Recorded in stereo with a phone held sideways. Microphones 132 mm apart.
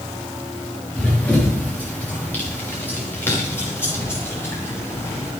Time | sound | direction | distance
0.9 | running footsteps | 10° left (ahead or behind) | 5 m